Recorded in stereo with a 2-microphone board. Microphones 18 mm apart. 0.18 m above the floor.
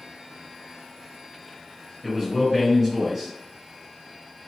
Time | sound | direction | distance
2.0 | a man speaking | centre (ahead or behind) | 1.7 m